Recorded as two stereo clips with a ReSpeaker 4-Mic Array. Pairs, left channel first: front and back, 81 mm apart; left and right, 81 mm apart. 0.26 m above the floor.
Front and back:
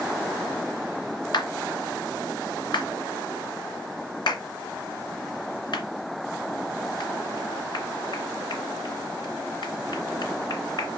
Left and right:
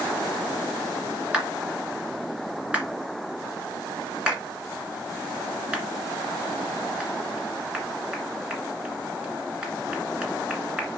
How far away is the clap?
About 2 m.